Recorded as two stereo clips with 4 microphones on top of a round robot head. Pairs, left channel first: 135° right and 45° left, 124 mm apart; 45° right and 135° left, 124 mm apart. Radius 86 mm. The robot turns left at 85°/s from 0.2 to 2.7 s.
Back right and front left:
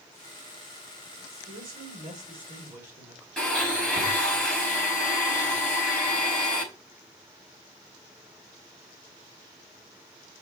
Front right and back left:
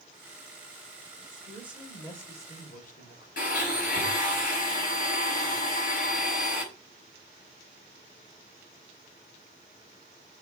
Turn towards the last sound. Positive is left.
turn(degrees=-50)